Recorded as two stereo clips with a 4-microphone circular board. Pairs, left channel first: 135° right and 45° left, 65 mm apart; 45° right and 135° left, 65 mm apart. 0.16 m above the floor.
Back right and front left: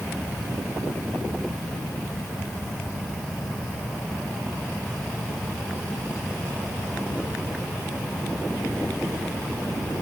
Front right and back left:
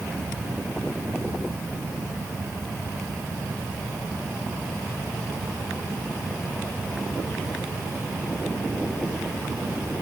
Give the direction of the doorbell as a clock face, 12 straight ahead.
No doorbell in this recording.